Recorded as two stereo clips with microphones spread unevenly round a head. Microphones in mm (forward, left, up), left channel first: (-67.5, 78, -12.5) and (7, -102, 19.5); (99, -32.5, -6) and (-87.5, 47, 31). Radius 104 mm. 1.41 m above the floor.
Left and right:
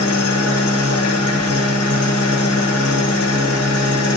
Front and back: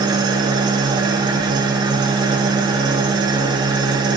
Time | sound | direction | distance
0.0 | an engine running | 90° left | 0.7 m